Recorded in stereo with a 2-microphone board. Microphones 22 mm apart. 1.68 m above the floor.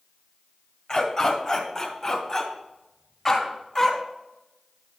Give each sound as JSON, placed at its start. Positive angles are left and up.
{"t": 0.9, "sound": "a dog barking", "side_deg": 30, "distance_m": 1.9}